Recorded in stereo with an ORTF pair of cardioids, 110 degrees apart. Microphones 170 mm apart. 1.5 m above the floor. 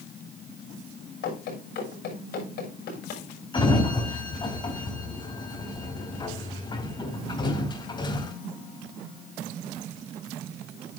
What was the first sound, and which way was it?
Running footsteps, 70° left.